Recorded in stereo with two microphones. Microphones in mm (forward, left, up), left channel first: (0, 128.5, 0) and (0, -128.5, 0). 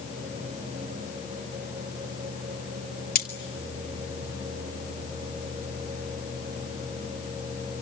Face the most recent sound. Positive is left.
turn(degrees=35)  # may be behind; listen again after turning